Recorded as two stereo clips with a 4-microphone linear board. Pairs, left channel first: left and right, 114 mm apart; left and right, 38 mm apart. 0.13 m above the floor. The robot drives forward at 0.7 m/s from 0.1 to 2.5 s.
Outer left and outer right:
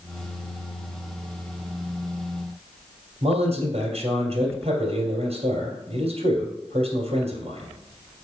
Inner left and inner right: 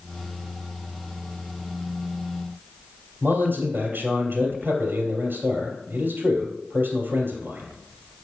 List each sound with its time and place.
3.2 s a man speaking: 65° right (ahead or behind), 2.5 m